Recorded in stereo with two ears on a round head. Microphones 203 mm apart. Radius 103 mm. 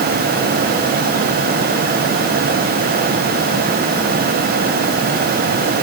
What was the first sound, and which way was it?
Only background noise.